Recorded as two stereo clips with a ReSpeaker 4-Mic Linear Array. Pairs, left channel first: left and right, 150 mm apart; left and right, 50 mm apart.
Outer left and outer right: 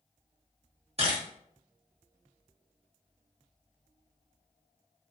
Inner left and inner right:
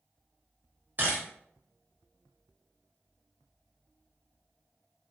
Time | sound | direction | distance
1.0 | a camera shutter | 40° right (ahead or behind) | 1.1 m